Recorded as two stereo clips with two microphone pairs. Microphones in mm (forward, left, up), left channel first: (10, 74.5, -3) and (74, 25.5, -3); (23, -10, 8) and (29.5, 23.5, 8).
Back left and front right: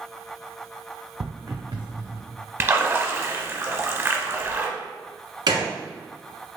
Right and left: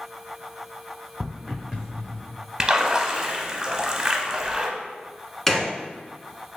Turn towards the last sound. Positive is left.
turn(degrees=-25)